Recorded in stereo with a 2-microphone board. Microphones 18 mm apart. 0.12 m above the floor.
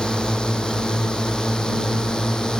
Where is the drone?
55° left (ahead or behind); by 2.6 s 50° left (ahead or behind).